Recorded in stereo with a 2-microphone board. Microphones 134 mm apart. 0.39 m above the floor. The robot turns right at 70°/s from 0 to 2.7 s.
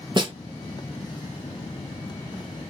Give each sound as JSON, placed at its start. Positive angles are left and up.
{"t": 0.2, "sound": "a snare drum", "side_deg": -35, "distance_m": 0.8}